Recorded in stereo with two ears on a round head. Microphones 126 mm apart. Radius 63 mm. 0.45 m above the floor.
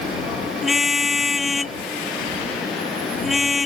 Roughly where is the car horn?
Centre.